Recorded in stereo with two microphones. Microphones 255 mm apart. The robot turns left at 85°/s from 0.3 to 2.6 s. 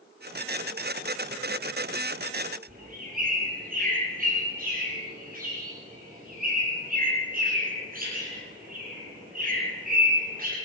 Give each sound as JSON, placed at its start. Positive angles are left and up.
{"t": 2.7, "sound": "a bird", "side_deg": -35, "distance_m": 8.5}